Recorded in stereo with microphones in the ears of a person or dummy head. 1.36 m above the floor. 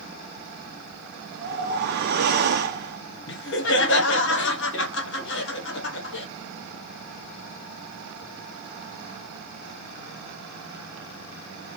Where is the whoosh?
50° right (ahead or behind), 0.7 m.